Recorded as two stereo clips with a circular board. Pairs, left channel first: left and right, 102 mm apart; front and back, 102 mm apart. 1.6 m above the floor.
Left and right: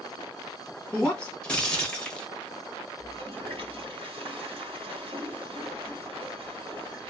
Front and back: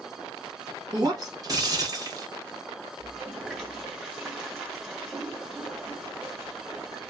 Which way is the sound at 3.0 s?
95° right.